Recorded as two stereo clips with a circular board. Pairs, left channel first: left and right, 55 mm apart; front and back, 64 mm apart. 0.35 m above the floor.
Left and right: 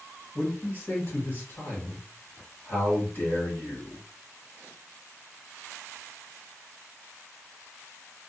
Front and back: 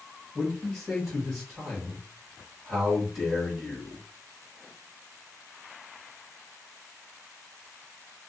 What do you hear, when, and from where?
0.3 s a man speaking: 90° left, 1.2 m